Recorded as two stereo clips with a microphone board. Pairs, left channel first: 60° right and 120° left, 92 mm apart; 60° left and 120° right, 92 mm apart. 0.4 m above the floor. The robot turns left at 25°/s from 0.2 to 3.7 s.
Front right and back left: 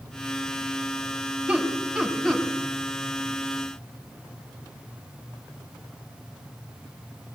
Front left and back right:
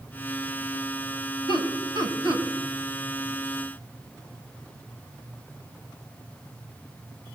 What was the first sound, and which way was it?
Laughter, 45° left.